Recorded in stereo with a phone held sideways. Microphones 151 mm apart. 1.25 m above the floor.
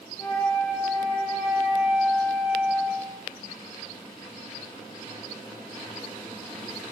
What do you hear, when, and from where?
0.2 s a flute: 30° left (ahead or behind), 0.7 m